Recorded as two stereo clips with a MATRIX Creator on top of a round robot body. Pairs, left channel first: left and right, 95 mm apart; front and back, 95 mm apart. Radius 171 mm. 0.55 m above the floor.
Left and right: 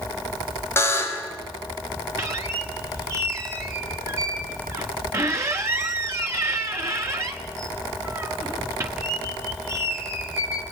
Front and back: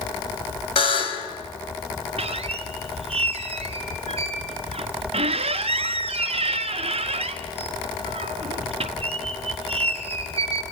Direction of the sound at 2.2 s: 155° right.